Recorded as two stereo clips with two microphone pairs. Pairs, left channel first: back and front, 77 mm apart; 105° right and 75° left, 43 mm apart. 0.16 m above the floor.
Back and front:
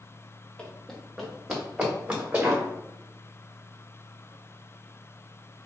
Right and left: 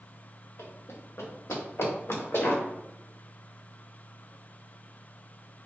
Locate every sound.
0.6 s running footsteps: 105° right, 1.4 m; by 2.6 s 70° right, 2.5 m